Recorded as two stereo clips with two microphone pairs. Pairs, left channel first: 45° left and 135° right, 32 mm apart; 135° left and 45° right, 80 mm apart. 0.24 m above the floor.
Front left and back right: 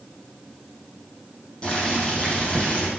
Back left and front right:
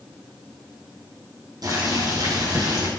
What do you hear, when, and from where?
1.6 s boiling: 10° right, 5 m